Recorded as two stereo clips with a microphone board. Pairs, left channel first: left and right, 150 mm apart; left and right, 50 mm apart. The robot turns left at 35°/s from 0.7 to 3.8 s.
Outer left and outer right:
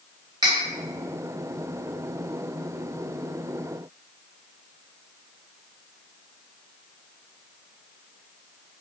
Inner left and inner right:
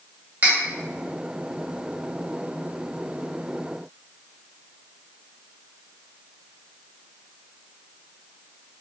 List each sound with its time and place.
0.4 s cutlery clinking: 30° right (ahead or behind), 0.8 m